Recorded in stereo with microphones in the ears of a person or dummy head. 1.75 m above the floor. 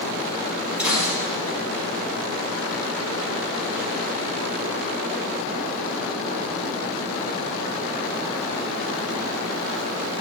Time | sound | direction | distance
0.8 | a gunshot | 5° right (ahead or behind) | 5 m